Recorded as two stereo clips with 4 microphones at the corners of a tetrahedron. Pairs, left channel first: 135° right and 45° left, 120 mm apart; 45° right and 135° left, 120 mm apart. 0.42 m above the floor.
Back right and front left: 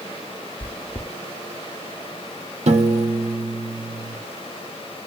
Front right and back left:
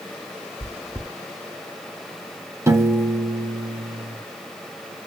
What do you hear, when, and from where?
0.6 s chewing: 105° right, 0.6 m
2.7 s a piano: 70° left, 0.7 m